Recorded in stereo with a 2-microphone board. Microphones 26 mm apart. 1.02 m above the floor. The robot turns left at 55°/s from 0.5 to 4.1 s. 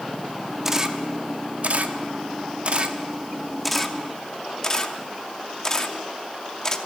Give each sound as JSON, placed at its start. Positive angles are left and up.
{"t": 0.7, "sound": "a camera shutter", "side_deg": -15, "distance_m": 0.8}